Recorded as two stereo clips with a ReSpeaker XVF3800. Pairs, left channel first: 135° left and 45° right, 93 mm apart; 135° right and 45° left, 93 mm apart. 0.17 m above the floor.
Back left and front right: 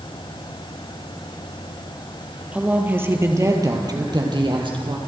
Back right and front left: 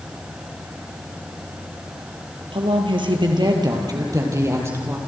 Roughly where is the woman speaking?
Ahead left.